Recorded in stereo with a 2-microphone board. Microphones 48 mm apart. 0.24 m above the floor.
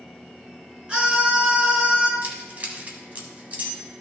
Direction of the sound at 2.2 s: 35° right (ahead or behind).